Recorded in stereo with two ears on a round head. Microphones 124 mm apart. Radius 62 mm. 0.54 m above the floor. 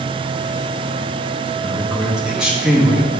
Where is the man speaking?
5° right (ahead or behind), 1.3 m.